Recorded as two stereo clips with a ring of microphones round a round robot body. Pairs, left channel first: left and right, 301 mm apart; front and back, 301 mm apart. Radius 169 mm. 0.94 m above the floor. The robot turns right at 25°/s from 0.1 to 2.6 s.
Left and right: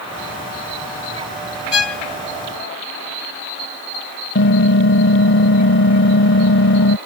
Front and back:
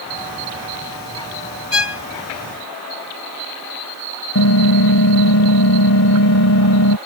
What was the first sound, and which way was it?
A violin, 45° left.